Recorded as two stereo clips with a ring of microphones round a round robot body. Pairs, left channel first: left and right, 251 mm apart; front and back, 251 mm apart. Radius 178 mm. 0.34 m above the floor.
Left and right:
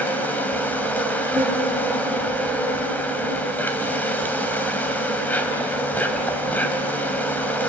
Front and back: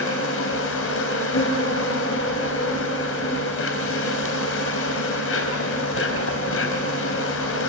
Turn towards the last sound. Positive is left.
turn(degrees=10)